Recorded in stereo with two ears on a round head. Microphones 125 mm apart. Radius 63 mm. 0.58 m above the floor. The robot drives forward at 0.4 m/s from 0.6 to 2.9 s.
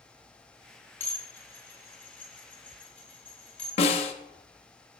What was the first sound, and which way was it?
Dishes clattering, 15° left (ahead or behind).